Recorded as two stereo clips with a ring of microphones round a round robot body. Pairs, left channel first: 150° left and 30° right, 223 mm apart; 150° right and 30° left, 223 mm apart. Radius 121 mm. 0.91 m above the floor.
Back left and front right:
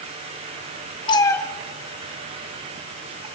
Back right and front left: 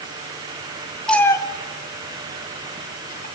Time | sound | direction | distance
1.1 | a cat meowing | 125° left | 0.7 m